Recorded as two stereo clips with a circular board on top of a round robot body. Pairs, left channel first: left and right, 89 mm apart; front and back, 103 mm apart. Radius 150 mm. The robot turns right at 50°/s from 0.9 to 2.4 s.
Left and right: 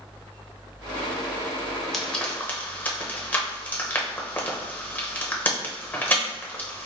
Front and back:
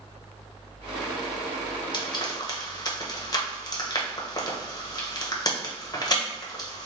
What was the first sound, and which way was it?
Frying, 5° left.